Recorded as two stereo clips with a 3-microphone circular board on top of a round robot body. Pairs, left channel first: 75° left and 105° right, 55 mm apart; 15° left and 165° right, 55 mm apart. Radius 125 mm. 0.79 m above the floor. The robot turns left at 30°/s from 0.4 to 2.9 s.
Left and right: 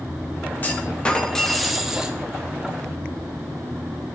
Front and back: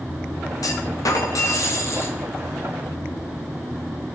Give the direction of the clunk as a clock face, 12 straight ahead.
11 o'clock.